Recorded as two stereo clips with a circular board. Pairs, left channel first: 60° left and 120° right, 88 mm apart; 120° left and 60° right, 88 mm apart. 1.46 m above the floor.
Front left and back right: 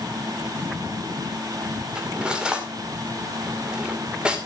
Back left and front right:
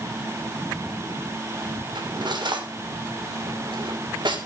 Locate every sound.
1.9 s cutlery clinking: 45° right, 2.5 m